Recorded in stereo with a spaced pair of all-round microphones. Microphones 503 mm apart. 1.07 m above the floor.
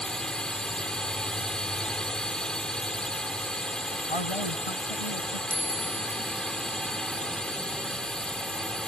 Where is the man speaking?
75° left (ahead or behind).